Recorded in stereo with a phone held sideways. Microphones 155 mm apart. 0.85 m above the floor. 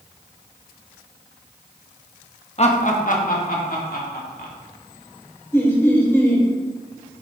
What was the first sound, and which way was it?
Laughter, 40° left (ahead or behind).